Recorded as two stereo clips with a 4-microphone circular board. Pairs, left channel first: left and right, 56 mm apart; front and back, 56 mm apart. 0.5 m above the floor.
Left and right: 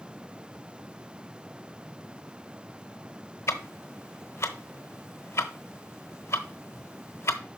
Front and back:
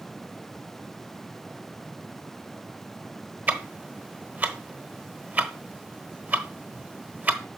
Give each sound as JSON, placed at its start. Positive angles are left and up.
{"t": 3.5, "sound": "ticking", "azimuth_deg": 125, "distance_m": 0.9}